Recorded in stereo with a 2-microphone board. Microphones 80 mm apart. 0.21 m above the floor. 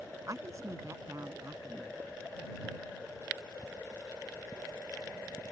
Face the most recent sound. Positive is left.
turn(degrees=-40)  # may be behind; listen again after turning